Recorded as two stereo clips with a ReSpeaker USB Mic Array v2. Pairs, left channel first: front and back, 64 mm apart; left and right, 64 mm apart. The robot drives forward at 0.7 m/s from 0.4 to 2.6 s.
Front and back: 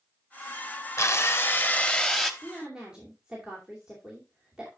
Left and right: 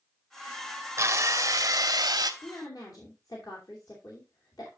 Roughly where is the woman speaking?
Left.